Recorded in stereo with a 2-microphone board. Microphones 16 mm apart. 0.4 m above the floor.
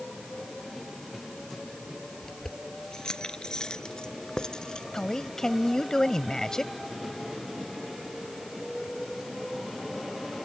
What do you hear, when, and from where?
2.2 s keys jangling: 65° left (ahead or behind); by 4.8 s 80° left
4.9 s a man speaking: 55° left (ahead or behind)